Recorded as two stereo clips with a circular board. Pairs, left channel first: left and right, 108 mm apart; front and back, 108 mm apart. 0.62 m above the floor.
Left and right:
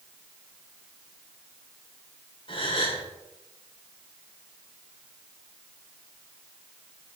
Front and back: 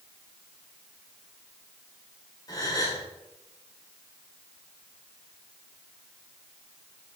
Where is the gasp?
55° left, 1.7 m.